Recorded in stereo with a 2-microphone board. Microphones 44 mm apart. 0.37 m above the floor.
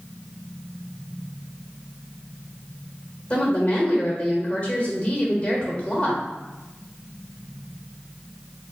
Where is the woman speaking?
30° left (ahead or behind), 1.2 m.